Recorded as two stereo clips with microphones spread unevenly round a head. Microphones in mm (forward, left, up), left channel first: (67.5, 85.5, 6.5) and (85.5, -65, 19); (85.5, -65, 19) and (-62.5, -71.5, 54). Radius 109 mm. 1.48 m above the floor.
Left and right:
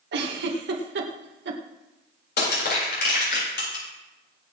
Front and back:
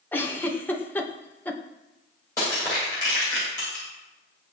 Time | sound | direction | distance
0.1 | a giggle | 75° right | 1.8 m
2.4 | crushing | 80° left | 8 m